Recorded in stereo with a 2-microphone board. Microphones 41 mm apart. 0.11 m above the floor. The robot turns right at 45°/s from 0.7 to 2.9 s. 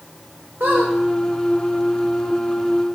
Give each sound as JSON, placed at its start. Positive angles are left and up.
{"t": 0.6, "sound": "a squeak", "side_deg": -65, "distance_m": 1.0}